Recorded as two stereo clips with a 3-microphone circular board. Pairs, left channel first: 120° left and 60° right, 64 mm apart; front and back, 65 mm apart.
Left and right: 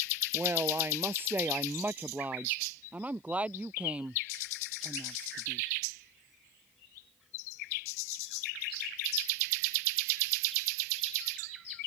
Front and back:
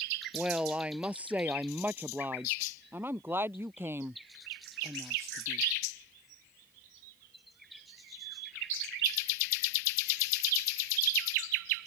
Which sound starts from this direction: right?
A woman speaking, at 0.3 s.